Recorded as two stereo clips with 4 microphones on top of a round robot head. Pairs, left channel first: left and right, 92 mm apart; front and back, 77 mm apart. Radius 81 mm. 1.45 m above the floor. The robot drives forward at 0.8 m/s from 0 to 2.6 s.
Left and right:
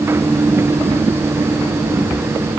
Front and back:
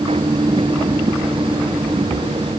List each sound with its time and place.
Only background noise.